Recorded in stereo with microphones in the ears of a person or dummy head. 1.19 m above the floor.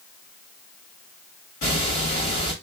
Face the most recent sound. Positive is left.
turn(degrees=40)  # may be behind; listen again after turning